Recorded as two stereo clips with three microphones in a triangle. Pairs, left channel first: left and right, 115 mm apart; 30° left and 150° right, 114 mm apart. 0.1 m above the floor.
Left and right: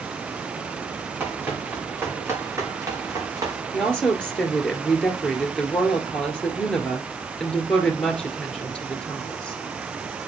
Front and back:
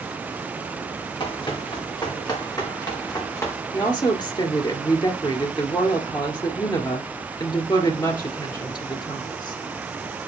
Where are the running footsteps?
15° right, 5.5 m; by 3.5 s 35° right, 4 m.